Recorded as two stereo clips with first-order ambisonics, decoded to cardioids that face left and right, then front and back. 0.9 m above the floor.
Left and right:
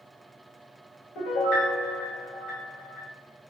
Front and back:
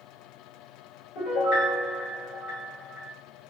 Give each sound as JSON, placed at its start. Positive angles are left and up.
{"t": 1.1, "sound": "a piano", "azimuth_deg": 45, "distance_m": 4.0}